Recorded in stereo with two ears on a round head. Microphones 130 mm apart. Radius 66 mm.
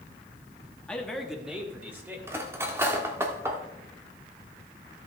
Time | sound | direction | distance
0.9 | a man speaking | 5° left (ahead or behind) | 1.2 m
2.3 | cutlery clinking | 15° right (ahead or behind) | 1.0 m